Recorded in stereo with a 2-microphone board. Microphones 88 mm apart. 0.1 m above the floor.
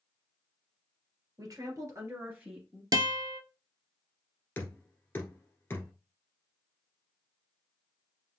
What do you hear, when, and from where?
1.4 s a woman speaking: 45° right (ahead or behind), 2 m; by 2.8 s 5° right (ahead or behind), 1.9 m
2.9 s a guitar: 50° right (ahead or behind), 0.6 m
4.6 s knocking: 25° left (ahead or behind), 1.4 m